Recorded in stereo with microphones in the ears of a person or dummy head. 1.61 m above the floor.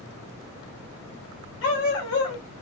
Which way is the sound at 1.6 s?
70° left (ahead or behind).